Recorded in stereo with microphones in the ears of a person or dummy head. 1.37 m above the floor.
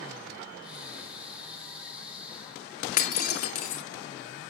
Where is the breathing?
10° right (ahead or behind), 3 m.